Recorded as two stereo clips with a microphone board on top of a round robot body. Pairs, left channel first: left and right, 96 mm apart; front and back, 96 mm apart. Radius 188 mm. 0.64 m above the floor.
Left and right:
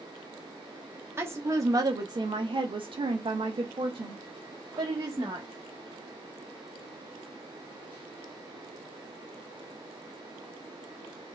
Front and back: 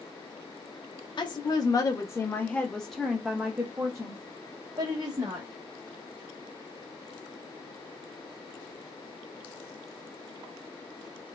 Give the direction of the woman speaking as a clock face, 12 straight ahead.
1 o'clock.